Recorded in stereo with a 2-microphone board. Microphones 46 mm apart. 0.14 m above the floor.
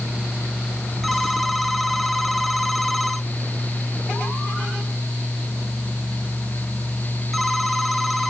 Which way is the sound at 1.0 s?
Centre (ahead or behind).